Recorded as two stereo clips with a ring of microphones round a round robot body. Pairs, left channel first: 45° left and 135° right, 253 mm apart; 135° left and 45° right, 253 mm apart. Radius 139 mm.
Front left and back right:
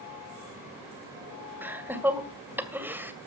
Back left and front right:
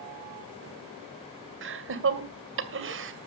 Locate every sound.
1.6 s laughter: 55° right, 2 m